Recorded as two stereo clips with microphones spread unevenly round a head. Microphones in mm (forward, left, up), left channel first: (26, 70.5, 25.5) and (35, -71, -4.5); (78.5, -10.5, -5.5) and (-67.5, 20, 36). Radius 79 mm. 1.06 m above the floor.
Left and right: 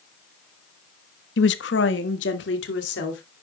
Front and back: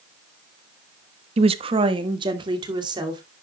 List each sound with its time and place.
1.4 s a woman speaking: 115° left, 1.0 m; by 3.2 s 105° left, 3 m